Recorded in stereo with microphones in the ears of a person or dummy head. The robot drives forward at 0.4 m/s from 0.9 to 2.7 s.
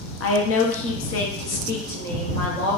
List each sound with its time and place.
0.2 s a woman speaking: 70° left (ahead or behind), 0.6 m; by 2.8 s 40° left (ahead or behind), 0.9 m